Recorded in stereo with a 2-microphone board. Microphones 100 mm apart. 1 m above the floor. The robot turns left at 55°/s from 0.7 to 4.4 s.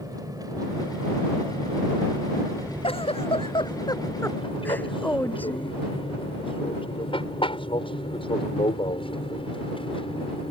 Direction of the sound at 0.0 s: 40° right (ahead or behind).